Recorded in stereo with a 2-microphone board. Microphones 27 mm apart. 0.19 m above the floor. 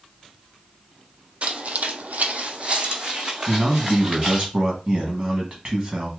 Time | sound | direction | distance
1.4 | footsteps | 55° right (ahead or behind) | 0.5 m
3.5 | a man speaking | 35° right (ahead or behind) | 1.2 m